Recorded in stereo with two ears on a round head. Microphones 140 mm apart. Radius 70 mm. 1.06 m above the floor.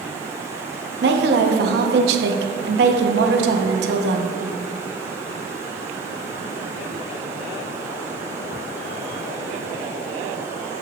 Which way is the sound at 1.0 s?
70° right (ahead or behind).